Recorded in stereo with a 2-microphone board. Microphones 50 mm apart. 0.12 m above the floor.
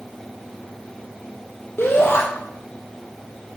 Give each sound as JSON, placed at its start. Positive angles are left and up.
{"t": 1.8, "sound": "a shout", "side_deg": 55, "distance_m": 4.5}